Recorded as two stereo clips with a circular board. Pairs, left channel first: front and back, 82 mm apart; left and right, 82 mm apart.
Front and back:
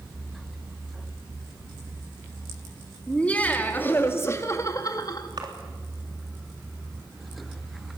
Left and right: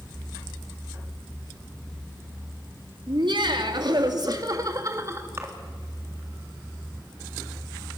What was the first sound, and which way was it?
Laughter, 75° right.